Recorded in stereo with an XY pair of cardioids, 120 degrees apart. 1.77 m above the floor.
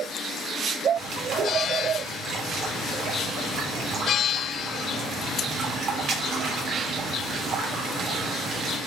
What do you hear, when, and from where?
1.0 s a bird: 65° right, 1.6 m